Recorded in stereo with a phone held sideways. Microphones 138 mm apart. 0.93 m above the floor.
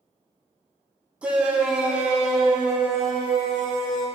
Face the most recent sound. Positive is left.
turn(degrees=0)  # may be behind; listen again after turning